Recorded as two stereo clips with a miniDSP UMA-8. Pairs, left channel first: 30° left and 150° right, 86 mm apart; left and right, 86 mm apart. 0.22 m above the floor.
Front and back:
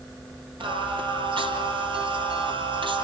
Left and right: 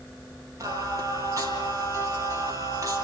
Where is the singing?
140° right, 3.5 m.